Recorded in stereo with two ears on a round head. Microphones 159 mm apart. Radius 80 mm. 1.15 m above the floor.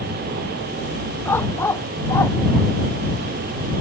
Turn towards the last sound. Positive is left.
turn(degrees=15)  # may be behind; listen again after turning